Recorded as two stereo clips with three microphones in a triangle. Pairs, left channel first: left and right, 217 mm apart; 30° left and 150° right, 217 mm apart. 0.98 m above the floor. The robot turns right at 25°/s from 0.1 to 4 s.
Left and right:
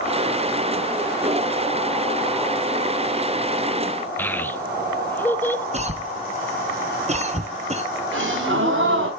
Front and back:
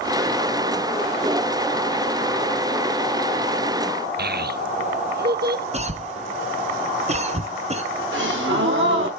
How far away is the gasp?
About 3 m.